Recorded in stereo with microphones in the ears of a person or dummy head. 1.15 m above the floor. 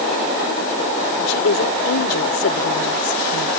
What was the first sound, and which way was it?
A woman speaking, 70° left (ahead or behind).